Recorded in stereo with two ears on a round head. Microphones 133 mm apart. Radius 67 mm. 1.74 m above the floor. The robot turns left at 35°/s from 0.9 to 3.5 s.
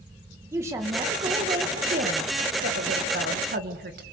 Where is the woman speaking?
20° right, 2.5 m; by 4.0 s 110° right, 2.5 m.